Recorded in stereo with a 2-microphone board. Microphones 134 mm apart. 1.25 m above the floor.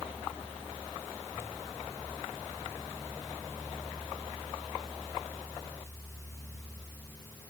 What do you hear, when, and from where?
Only background noise.